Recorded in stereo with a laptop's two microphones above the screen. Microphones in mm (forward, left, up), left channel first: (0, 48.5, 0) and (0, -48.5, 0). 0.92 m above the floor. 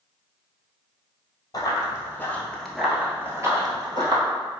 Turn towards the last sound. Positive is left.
turn(degrees=-50)  # may be behind; listen again after turning